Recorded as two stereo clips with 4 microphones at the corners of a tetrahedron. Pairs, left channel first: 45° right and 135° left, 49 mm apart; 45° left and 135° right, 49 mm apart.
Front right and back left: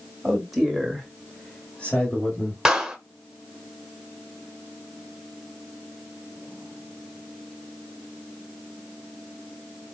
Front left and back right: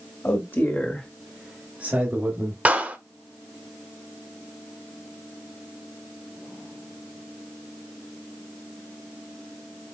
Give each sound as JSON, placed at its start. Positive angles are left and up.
{"t": 0.2, "sound": "a man speaking", "azimuth_deg": 50, "distance_m": 2.0}
{"t": 2.6, "sound": "a clap", "azimuth_deg": -150, "distance_m": 1.1}